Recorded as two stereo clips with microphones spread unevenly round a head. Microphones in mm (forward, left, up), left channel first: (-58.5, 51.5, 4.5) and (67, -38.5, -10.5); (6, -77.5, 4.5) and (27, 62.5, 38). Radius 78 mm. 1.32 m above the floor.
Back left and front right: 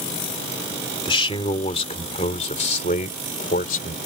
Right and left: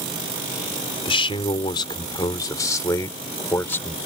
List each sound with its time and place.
1.1 s a man speaking: 155° right; by 4.0 s straight behind